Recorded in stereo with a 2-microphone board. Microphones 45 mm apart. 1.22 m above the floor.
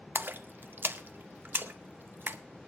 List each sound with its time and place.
0.1 s a splash: 45° right (ahead or behind), 0.7 m